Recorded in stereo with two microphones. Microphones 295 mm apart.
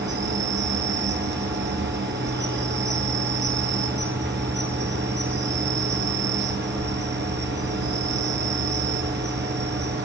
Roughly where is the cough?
I don't hear a cough.